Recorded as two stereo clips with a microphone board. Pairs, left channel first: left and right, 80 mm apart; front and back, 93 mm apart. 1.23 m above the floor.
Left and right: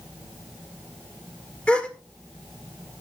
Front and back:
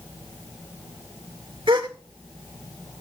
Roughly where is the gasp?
Behind.